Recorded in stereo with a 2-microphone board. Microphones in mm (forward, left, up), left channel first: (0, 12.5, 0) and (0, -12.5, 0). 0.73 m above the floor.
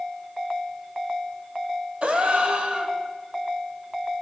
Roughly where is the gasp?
Right.